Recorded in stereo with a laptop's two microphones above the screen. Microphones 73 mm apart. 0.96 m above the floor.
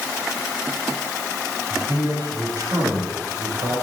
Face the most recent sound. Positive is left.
turn(degrees=-65)  # may be behind; listen again after turning